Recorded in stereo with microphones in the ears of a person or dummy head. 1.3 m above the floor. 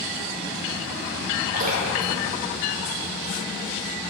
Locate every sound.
1.5 s dripping: 45° right (ahead or behind), 4.5 m